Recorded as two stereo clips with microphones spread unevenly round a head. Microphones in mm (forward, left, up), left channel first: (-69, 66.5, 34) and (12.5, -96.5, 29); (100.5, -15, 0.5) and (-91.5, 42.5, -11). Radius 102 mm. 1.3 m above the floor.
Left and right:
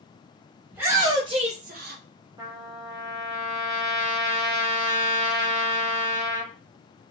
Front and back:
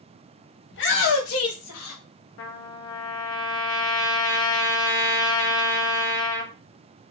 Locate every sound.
0.7 s a shout: 20° left, 0.9 m; by 2.0 s 35° right, 0.6 m
2.4 s a trumpet: 10° left, 0.6 m